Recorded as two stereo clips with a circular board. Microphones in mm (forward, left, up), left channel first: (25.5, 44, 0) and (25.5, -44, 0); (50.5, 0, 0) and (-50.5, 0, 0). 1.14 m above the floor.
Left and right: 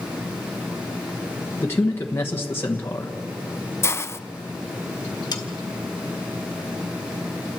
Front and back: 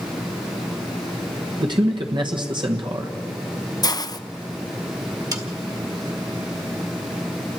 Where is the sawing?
130° left, 1.7 m.